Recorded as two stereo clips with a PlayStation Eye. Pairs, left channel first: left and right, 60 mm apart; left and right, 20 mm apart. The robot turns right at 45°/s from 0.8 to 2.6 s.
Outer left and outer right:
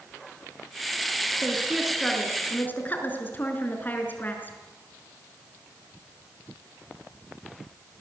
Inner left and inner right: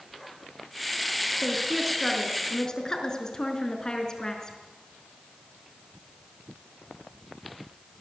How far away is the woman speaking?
About 5 m.